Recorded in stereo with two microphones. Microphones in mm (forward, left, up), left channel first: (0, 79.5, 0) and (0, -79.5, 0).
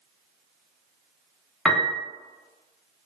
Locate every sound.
1.6 s a piano: 5° left (ahead or behind), 0.6 m